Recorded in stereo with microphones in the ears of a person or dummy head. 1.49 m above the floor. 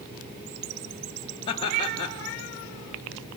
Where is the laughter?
30° left (ahead or behind), 0.7 m.